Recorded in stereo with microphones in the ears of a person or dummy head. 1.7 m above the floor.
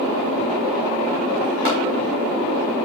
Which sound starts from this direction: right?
Tapping, at 1.6 s.